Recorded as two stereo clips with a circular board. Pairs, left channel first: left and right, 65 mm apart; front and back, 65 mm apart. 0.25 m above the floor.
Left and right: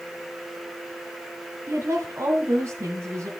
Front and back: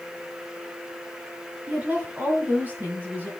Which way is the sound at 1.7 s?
120° right.